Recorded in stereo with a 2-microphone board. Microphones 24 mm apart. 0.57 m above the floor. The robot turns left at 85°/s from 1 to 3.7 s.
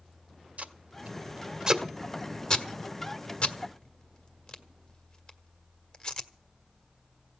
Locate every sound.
0.6 s tape being pulled: 70° right (ahead or behind), 1.6 m; by 6.3 s 35° left (ahead or behind), 1.6 m